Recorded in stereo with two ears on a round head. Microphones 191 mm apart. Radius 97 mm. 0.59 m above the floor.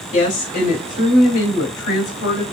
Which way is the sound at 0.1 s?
35° left (ahead or behind).